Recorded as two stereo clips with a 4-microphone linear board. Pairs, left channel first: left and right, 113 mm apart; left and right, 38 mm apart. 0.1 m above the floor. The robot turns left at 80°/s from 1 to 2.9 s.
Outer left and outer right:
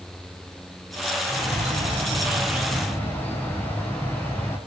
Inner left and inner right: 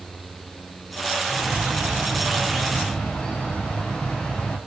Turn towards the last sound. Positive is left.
turn(degrees=165)